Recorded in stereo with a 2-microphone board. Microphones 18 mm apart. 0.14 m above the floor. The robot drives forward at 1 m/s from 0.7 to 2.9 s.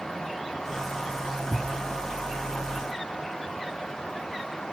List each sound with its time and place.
1.5 s a thud: 65° right (ahead or behind), 1.5 m